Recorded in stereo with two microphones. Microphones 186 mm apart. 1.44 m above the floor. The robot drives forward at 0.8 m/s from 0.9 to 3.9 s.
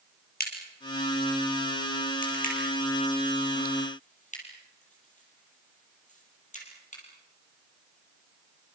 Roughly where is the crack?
Left.